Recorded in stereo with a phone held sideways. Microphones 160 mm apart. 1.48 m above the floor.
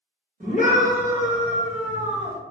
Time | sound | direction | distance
0.4 | a scream | 55° right (ahead or behind) | 1.8 m